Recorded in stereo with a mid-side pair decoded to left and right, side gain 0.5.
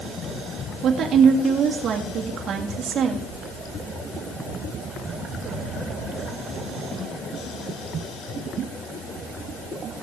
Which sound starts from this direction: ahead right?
A woman speaking, at 0.8 s.